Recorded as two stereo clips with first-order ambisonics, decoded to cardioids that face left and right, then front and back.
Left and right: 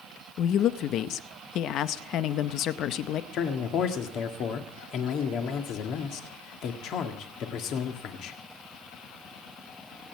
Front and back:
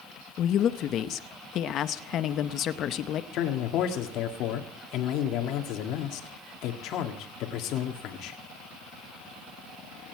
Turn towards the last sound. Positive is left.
turn(degrees=40)